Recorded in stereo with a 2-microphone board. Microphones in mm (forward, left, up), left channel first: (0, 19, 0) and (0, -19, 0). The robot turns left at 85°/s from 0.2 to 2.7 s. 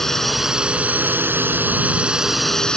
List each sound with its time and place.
0.0 s a drone: 10° left; by 2.8 s 160° left